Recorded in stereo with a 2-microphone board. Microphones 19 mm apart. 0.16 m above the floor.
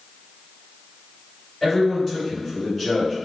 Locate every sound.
1.6 s a man speaking: 20° left (ahead or behind), 1.5 m